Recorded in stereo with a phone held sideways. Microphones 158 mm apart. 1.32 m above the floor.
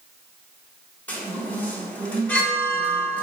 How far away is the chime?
About 1.3 m.